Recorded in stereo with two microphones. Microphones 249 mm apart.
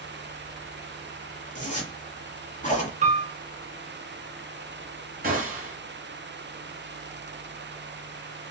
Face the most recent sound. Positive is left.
turn(degrees=-35)  # may be behind; listen again after turning